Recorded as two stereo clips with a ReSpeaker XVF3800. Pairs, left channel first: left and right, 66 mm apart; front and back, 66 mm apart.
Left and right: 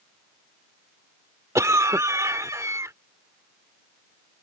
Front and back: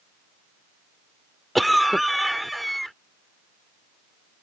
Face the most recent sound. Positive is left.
turn(degrees=-90)